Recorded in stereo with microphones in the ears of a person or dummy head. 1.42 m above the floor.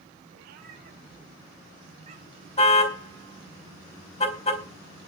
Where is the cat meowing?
50° right (ahead or behind), 4.5 m; by 2.5 s 30° right (ahead or behind), 5.5 m.